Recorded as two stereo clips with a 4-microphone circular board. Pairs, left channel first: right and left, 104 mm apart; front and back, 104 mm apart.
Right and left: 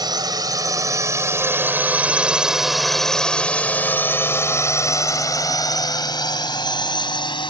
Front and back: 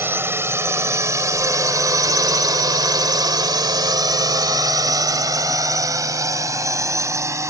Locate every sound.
0.0 s a drone: 120° left; by 7.5 s 120° right